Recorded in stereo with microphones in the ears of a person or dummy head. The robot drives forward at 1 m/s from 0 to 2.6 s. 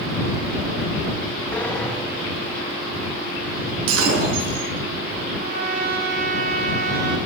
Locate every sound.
1.5 s a sliding door: 10° left (ahead or behind), 1.7 m; by 3.8 s 5° left (ahead or behind), 3 m
3.9 s breaking glass: 80° right, 5.5 m
5.4 s a trumpet: 60° right (ahead or behind), 3 m